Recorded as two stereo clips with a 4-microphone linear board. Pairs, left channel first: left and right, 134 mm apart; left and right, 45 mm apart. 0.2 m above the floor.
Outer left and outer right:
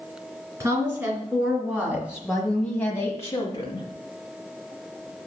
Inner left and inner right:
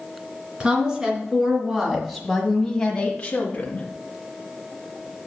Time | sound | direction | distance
0.6 | a woman speaking | 25° right (ahead or behind) | 3 m